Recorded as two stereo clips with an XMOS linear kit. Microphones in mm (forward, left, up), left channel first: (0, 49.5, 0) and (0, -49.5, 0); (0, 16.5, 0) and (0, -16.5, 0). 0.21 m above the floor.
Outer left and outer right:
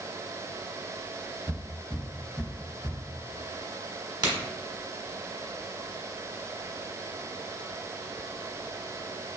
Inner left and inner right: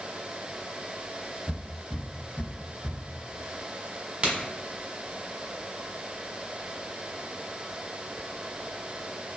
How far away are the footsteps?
About 1.8 m.